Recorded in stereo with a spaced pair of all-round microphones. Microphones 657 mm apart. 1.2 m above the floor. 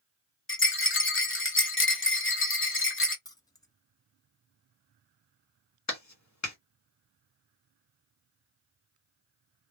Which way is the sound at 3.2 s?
5° left (ahead or behind).